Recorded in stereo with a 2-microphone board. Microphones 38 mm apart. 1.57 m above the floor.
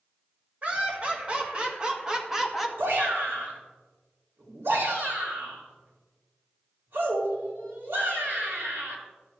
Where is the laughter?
35° right (ahead or behind), 2.5 m; by 2.7 s 5° right (ahead or behind), 1.3 m.